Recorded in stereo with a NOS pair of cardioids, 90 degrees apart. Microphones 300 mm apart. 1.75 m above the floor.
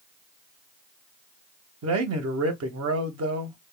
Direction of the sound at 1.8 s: 60° right.